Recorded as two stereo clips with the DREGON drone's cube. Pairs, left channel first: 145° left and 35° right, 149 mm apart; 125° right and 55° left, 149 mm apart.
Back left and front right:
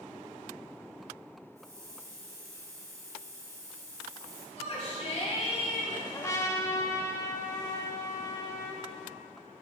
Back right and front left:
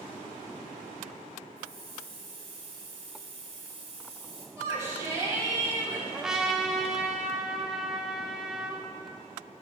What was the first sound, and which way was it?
A hiss, 25° left.